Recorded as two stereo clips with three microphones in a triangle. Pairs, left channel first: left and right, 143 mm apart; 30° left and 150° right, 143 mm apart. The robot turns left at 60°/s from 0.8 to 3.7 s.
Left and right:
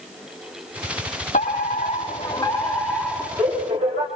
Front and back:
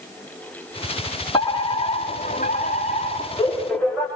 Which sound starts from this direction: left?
A fire alarm, at 1.3 s.